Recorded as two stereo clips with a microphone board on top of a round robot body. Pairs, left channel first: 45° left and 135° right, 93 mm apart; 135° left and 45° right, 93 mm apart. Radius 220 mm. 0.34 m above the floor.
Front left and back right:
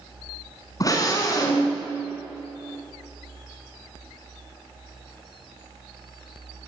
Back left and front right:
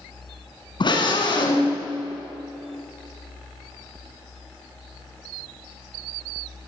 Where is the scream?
100° left, 6.5 m.